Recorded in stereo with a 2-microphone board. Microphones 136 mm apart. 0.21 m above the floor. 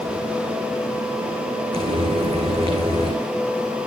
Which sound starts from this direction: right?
Frying, at 1.7 s.